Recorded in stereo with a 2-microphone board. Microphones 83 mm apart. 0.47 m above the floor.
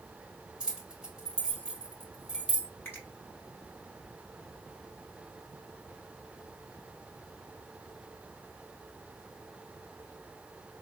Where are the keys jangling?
10° right (ahead or behind), 1.5 m.